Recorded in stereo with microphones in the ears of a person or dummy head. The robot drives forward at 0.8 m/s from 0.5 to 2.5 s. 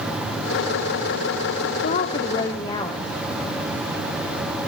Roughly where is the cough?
I don't hear a cough.